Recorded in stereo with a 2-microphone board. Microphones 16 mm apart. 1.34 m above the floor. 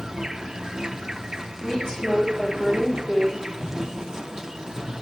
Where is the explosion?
75° left (ahead or behind), 2.5 m.